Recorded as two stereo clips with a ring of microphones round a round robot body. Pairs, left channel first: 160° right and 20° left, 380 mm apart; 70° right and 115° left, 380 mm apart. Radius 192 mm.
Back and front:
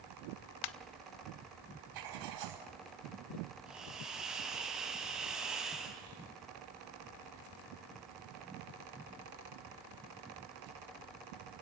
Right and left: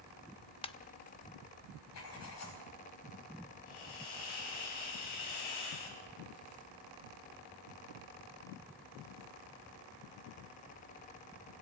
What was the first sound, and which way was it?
A ringtone, 145° right.